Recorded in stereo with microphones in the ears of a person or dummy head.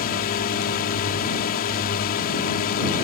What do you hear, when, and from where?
0.0 s a drone: 50° left (ahead or behind)